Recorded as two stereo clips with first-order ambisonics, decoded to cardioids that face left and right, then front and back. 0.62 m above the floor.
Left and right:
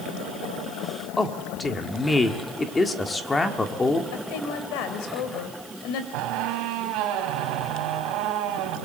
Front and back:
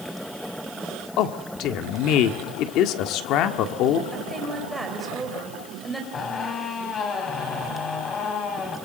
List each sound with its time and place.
1.2 s a man speaking: 15° left, 1.6 m
4.1 s a woman speaking: 95° left, 3.5 m
6.1 s a squeak: 65° right, 3.5 m